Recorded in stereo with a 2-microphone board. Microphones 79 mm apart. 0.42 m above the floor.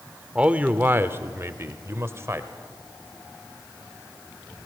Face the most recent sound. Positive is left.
turn(degrees=-35)  # may be behind; listen again after turning